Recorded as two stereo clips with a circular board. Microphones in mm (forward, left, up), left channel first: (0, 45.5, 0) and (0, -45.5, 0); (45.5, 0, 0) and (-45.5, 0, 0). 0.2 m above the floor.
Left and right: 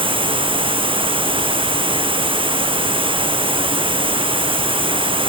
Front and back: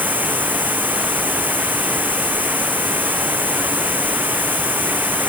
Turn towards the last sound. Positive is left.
turn(degrees=-110)